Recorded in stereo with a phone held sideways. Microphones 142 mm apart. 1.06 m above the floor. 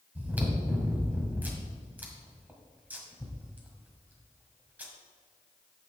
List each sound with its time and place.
0.1 s chewing: 10° right (ahead or behind), 1.7 m